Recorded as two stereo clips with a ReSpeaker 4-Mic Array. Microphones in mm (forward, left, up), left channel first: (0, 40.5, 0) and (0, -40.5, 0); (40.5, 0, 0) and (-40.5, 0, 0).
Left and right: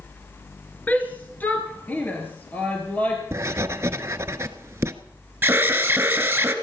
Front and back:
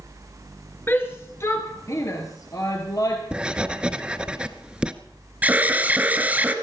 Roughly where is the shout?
Ahead left.